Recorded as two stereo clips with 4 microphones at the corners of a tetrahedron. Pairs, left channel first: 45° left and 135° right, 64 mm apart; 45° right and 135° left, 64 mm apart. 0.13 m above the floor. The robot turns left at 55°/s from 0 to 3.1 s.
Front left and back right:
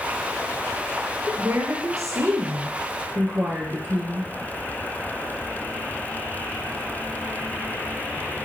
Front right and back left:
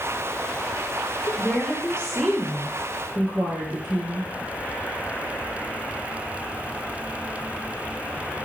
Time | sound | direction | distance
1.3 | a woman speaking | 80° right | 2.5 m